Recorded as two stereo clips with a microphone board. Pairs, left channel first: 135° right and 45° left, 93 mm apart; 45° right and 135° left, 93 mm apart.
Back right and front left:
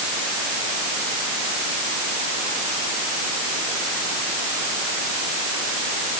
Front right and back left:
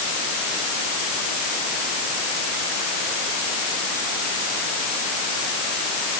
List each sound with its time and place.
Only background noise.